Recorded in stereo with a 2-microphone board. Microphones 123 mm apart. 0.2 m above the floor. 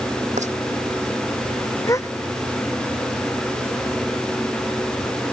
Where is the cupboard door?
No cupboard door in this recording.